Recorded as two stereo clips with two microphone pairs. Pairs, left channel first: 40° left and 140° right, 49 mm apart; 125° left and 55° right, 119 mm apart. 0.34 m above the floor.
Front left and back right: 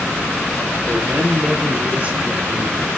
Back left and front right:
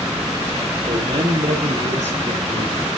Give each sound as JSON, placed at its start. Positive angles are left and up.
{"t": 0.9, "sound": "a man speaking", "azimuth_deg": -80, "distance_m": 7.0}